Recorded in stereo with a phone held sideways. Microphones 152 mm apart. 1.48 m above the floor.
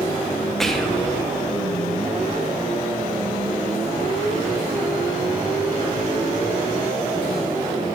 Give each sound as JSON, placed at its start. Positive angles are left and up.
{"t": 0.6, "sound": "whispering", "side_deg": 5, "distance_m": 0.8}